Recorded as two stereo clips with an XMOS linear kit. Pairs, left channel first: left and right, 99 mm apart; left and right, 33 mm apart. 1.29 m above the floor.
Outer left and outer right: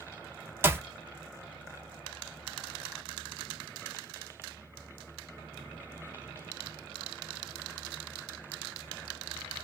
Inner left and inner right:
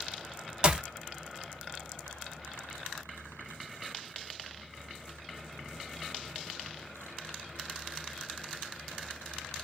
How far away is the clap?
About 1.1 m.